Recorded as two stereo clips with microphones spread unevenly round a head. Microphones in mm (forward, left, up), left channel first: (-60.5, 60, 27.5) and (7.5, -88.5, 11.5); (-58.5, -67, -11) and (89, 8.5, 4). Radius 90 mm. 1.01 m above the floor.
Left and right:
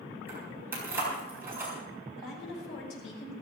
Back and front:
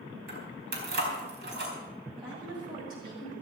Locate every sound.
0.3 s keys jangling: 15° left, 4 m
2.2 s a woman speaking: 95° left, 6 m